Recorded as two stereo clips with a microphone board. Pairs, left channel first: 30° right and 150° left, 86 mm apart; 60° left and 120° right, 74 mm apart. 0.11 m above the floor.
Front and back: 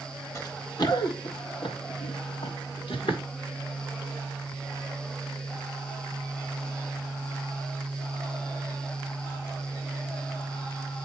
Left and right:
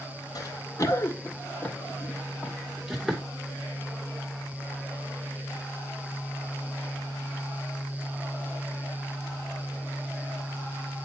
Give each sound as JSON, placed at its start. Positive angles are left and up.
{"t": 0.3, "sound": "running footsteps", "azimuth_deg": 25, "distance_m": 1.6}